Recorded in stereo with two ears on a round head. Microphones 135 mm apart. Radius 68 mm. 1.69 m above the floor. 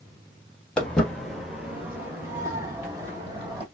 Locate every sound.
0.8 s footsteps: 10° left (ahead or behind), 1.8 m; by 3.6 s 30° right (ahead or behind), 3 m